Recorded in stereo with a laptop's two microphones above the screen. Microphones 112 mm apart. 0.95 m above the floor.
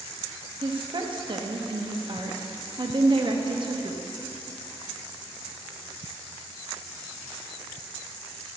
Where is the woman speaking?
45° right (ahead or behind), 1.5 m.